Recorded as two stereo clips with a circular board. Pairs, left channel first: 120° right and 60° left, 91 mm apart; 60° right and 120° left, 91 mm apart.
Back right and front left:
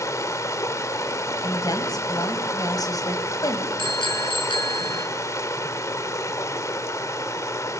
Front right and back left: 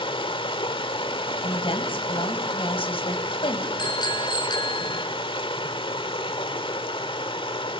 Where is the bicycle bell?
100° right, 5 m.